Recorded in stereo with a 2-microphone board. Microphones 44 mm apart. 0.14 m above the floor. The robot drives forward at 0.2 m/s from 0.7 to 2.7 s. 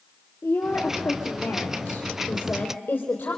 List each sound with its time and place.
0.4 s a woman speaking: 60° left (ahead or behind), 3 m; by 3.4 s 55° left (ahead or behind), 3 m